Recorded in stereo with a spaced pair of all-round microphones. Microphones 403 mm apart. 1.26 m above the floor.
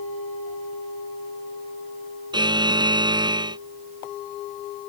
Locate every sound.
2.3 s a buzzer: 10° right (ahead or behind)